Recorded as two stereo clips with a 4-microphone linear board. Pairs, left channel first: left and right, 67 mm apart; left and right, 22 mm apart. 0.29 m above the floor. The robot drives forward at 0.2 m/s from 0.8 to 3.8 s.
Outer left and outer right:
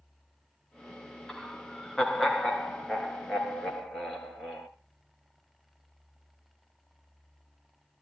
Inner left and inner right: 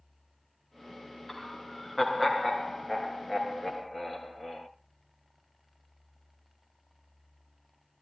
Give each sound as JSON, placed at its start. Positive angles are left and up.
{"t": 1.3, "sound": "laughter", "side_deg": 10, "distance_m": 3.0}